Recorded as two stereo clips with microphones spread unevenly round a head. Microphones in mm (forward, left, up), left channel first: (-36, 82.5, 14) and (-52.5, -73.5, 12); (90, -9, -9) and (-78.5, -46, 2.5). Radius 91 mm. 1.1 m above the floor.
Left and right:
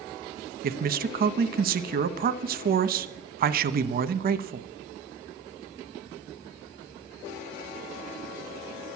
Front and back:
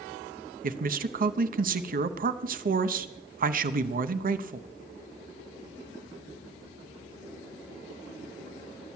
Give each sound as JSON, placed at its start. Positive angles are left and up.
{"t": 0.6, "sound": "a man speaking", "azimuth_deg": -125, "distance_m": 0.8}